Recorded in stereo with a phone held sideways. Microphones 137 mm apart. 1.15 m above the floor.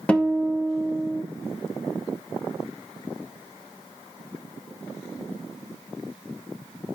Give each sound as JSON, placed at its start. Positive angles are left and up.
{"t": 0.1, "sound": "a guitar", "side_deg": 10, "distance_m": 0.9}